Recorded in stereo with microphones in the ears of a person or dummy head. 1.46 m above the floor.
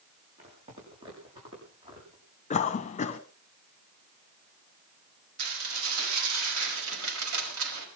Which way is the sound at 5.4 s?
70° right (ahead or behind).